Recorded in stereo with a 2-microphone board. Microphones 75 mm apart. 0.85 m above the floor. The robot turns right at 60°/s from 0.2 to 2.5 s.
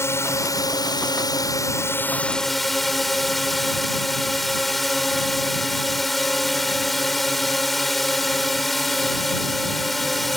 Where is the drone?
40° left; by 10.4 s straight behind.